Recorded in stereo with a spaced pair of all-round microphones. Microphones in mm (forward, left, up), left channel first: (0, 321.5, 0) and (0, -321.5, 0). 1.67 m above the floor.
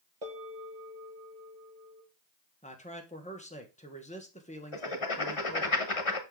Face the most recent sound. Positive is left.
turn(degrees=50)  # may be behind; listen again after turning